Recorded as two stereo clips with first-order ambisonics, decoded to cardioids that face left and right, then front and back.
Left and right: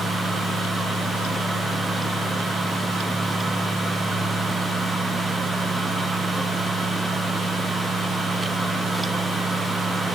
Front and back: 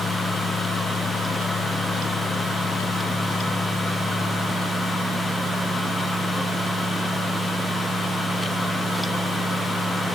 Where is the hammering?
No hammering in this recording.